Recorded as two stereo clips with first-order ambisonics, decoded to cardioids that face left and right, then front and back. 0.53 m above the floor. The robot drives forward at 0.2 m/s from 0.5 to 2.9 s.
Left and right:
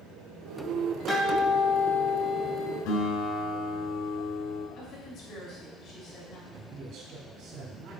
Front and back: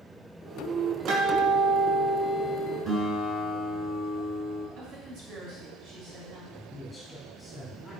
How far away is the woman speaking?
About 3.5 m.